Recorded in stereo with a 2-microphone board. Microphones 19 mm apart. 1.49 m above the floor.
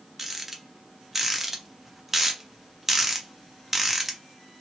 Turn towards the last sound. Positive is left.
turn(degrees=-15)  # may be behind; listen again after turning